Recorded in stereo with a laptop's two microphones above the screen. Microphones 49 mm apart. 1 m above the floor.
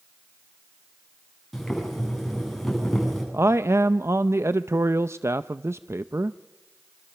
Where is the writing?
No writing in this recording.